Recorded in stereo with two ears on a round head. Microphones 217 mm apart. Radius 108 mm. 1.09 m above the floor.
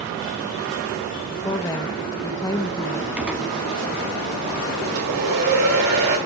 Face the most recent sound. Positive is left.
turn(degrees=-70)  # may be behind; listen again after turning